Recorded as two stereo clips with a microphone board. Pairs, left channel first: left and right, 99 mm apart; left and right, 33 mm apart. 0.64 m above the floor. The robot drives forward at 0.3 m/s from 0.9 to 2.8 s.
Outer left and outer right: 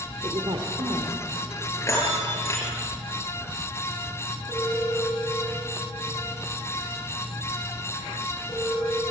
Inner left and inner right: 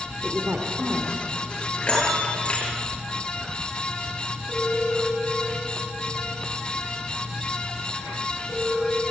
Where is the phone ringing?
40° left (ahead or behind), 3 m.